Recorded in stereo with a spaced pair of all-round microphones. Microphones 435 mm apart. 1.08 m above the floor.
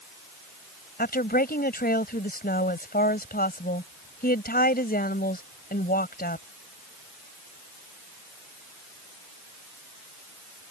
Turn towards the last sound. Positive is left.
turn(degrees=20)  # may be behind; listen again after turning